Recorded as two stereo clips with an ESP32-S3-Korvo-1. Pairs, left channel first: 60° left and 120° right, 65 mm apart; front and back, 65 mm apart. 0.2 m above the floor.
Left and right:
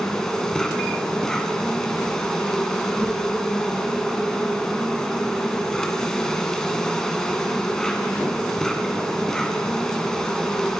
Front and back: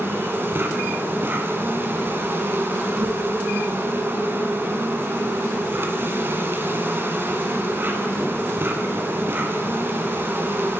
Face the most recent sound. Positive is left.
turn(degrees=140)